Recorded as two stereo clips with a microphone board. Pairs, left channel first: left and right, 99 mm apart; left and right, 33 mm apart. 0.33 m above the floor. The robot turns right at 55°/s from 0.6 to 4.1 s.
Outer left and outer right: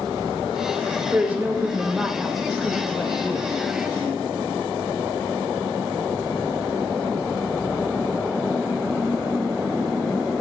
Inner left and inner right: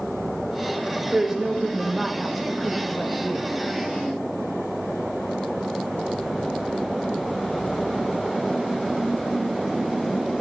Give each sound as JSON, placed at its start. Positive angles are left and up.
{"t": 1.1, "sound": "a woman speaking", "side_deg": -20, "distance_m": 0.9}